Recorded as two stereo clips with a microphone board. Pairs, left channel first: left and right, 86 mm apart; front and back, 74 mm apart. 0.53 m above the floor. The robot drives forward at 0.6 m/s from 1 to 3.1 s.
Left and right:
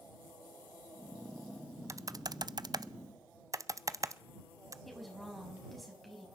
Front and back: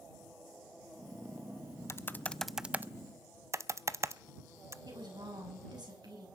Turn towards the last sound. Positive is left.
turn(degrees=180)